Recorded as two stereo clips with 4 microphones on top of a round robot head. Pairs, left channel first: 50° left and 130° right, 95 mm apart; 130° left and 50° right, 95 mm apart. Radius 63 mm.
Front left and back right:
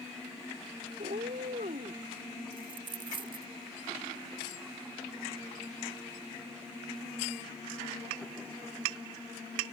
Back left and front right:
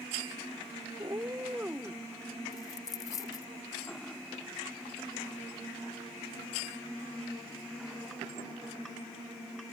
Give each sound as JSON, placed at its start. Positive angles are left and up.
{"t": 1.0, "sound": "a cat meowing", "azimuth_deg": -110}
{"t": 2.5, "sound": "a dropped coin", "azimuth_deg": -170}